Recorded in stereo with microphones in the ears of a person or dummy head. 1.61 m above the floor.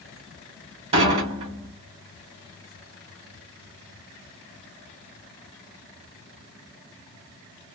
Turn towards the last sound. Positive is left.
turn(degrees=-40)  # may be behind; listen again after turning